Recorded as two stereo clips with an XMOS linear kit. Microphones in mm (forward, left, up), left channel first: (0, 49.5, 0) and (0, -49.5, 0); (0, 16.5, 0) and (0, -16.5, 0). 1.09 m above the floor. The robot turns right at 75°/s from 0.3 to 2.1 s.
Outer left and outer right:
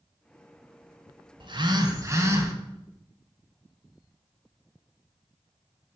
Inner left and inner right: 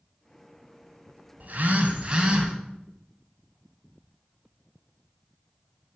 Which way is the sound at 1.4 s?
90° right.